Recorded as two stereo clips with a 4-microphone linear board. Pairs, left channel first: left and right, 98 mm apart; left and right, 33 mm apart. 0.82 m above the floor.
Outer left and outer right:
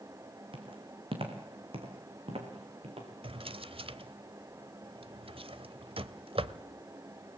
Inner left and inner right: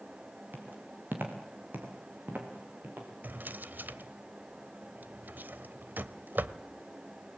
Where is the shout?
No shout in this recording.